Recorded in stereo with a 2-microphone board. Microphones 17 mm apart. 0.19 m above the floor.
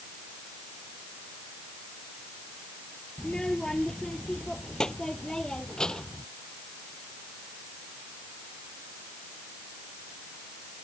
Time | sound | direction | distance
3.2 | a child speaking | 50° left (ahead or behind) | ?